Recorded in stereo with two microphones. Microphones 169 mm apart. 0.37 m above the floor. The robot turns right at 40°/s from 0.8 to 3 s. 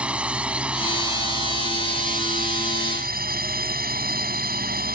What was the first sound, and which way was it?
A drone, 170° right.